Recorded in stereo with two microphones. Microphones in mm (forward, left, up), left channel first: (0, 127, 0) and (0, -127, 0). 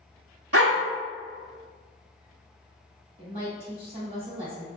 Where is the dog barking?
65° right (ahead or behind), 0.9 m.